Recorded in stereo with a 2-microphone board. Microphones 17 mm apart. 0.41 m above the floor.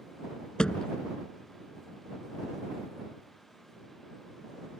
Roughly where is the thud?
Left.